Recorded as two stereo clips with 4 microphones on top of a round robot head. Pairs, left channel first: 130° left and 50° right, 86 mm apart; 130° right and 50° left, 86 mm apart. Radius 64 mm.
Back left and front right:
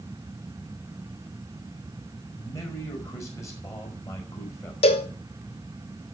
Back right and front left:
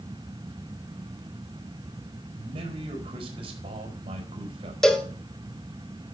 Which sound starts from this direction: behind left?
A cowbell, at 4.8 s.